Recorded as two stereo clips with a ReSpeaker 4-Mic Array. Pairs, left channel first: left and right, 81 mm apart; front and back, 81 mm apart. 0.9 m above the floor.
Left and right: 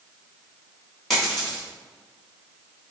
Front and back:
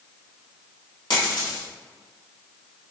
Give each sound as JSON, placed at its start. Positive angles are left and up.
{"t": 1.1, "sound": "a dropped coin", "azimuth_deg": 0, "distance_m": 1.1}